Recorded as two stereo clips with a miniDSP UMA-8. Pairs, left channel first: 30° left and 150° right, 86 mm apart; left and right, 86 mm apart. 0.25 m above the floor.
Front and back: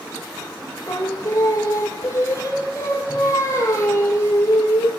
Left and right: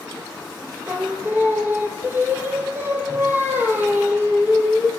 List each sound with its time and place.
0.9 s singing: 25° right, 1.7 m